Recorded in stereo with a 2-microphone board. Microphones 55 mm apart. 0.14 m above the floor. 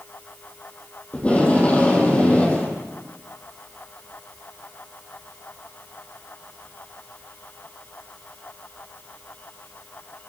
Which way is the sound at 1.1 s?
25° left (ahead or behind).